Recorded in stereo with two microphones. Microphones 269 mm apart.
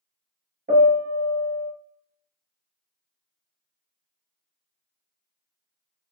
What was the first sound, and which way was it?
A piano, 35° right (ahead or behind).